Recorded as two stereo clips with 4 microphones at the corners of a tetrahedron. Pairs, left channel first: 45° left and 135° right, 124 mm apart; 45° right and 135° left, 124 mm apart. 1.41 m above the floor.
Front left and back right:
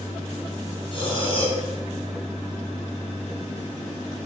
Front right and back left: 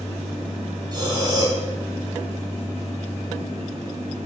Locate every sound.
0.9 s breathing: 80° left, 2.5 m